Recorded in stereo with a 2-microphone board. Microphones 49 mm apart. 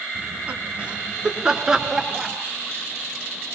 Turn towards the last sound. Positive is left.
turn(degrees=-5)  # may be behind; listen again after turning